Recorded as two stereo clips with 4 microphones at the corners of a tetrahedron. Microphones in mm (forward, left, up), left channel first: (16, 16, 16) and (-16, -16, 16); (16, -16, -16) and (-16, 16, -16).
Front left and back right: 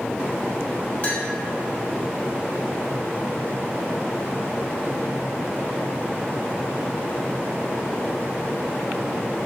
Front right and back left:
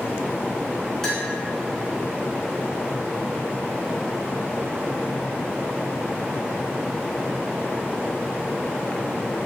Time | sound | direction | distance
1.0 | a clink | 30° left | 0.8 m